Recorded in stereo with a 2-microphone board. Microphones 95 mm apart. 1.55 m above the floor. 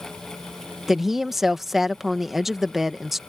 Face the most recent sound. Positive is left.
turn(degrees=0)  # may be behind; listen again after turning